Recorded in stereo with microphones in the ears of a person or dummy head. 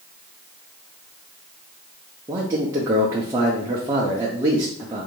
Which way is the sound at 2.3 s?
20° right (ahead or behind).